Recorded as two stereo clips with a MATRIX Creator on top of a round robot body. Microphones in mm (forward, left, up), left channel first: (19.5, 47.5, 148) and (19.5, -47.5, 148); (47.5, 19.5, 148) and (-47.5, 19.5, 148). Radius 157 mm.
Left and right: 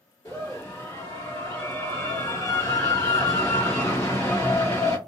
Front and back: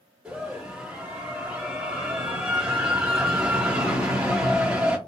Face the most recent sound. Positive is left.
turn(degrees=115)